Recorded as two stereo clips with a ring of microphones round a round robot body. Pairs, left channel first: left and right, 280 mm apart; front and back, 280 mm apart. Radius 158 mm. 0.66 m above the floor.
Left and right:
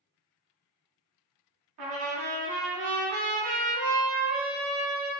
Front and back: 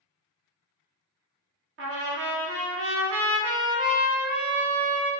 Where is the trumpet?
130° right, 0.6 m.